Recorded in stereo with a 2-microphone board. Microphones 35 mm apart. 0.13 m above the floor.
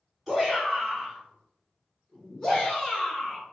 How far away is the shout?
About 1.8 m.